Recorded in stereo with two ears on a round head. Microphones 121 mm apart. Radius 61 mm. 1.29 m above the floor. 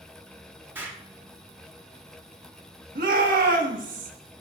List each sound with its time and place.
0.8 s an explosion: 15° right (ahead or behind), 1.4 m
3.0 s a shout: 65° right (ahead or behind), 2.0 m